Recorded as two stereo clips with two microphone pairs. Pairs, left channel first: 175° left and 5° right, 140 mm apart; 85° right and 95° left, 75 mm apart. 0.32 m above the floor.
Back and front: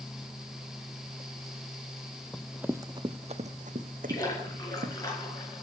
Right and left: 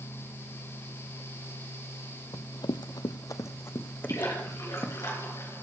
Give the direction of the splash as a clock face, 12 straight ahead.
4 o'clock.